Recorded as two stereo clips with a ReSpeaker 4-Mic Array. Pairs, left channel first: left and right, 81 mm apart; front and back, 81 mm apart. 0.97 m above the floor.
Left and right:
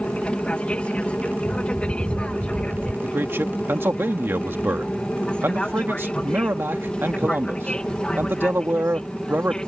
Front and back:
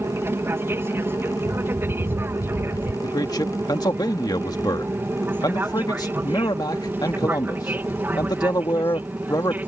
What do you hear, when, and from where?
0.0 s an aircraft: 150° left; by 9.7 s 155° left
1.4 s a bird: 150° right
3.0 s a man speaking: 30° right